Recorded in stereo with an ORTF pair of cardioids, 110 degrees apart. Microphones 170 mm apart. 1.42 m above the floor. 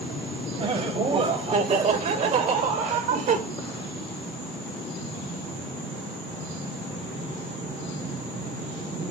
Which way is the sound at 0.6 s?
35° right.